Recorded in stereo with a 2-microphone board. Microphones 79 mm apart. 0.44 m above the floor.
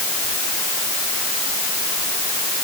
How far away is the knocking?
No knocking in this recording.